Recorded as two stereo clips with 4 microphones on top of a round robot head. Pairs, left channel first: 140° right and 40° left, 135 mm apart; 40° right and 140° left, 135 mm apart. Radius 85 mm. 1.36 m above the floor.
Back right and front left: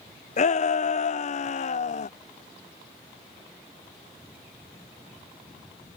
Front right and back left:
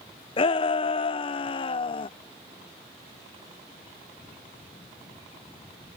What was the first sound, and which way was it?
A shout, 95° right.